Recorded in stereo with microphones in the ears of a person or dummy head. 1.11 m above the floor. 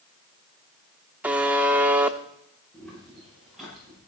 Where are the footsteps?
Centre (ahead or behind), 9.5 m; by 4.0 s 5° right (ahead or behind), 9 m.